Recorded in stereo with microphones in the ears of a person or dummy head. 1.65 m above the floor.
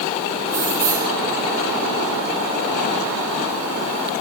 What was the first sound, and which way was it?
Keys jangling, 5° right (ahead or behind).